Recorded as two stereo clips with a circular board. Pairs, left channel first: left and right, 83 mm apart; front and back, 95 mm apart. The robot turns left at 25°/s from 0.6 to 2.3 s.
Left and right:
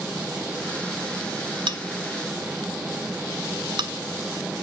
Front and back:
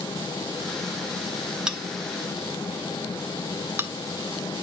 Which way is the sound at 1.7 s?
100° right.